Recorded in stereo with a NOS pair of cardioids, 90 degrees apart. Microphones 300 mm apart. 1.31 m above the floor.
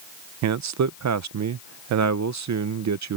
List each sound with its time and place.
0.4 s a man speaking: 70° right